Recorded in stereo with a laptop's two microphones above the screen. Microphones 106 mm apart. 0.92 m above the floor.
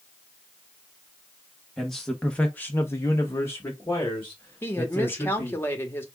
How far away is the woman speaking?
About 1.4 m.